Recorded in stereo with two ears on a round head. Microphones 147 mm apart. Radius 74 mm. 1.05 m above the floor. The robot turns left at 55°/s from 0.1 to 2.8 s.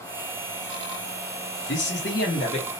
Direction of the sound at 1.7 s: 85° left.